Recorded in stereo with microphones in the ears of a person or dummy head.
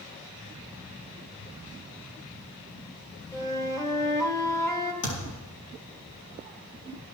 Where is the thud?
75° left (ahead or behind), 6.5 m.